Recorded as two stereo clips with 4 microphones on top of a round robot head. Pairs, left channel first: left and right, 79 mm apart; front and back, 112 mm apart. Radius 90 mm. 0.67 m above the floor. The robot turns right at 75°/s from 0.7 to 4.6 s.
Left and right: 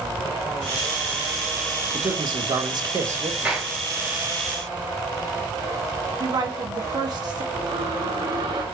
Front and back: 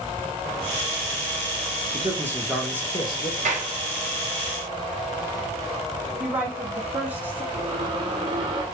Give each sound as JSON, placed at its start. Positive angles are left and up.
{"t": 1.9, "sound": "a man speaking", "azimuth_deg": -135, "distance_m": 1.7}
{"t": 3.5, "sound": "a clap", "azimuth_deg": -170, "distance_m": 2.0}
{"t": 6.2, "sound": "a woman speaking", "azimuth_deg": -105, "distance_m": 2.0}
{"t": 7.5, "sound": "a squeak", "azimuth_deg": -125, "distance_m": 1.7}